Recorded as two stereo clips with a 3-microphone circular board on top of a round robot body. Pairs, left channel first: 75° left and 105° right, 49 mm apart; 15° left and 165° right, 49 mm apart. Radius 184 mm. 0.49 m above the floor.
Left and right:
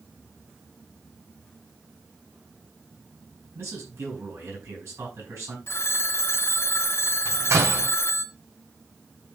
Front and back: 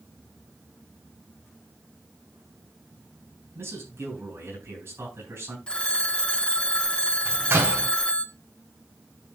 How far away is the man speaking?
About 8 m.